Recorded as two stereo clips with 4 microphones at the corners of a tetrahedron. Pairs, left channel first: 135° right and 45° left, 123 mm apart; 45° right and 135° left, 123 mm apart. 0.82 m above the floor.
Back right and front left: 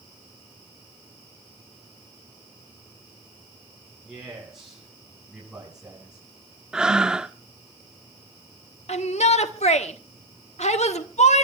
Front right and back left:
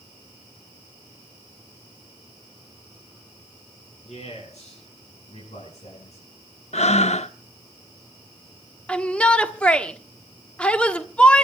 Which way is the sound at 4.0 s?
40° right.